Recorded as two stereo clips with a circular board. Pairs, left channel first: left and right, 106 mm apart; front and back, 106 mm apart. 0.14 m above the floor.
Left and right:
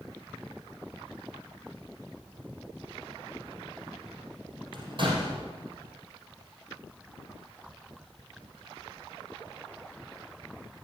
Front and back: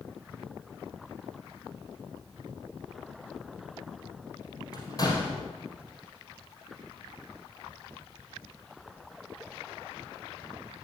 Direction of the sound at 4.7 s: 50° right.